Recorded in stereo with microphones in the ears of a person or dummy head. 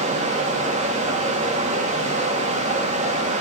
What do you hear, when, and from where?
0.0 s running water: 40° right (ahead or behind), 1.9 m